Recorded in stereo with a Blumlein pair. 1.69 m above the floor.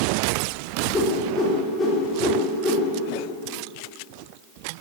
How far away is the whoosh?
About 3.5 m.